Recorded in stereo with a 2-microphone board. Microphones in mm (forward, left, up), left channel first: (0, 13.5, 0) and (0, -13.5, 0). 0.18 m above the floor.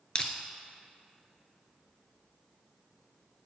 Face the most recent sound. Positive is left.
turn(degrees=30)  # may be behind; listen again after turning